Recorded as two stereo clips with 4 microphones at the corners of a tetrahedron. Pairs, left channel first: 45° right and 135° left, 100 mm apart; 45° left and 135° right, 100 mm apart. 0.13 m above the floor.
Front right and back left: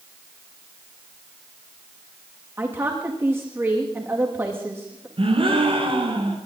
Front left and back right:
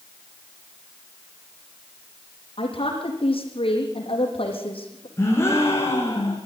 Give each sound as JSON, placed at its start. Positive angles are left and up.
{"t": 2.6, "sound": "a woman speaking", "azimuth_deg": 70, "distance_m": 6.0}
{"t": 5.2, "sound": "a gasp", "azimuth_deg": 110, "distance_m": 5.0}